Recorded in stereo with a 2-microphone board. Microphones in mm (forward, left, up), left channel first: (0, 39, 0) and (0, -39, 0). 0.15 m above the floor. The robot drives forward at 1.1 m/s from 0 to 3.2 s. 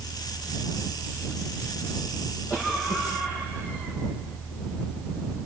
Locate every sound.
2.5 s a cough: 30° left (ahead or behind), 8 m; by 4.0 s 25° left (ahead or behind), 8.5 m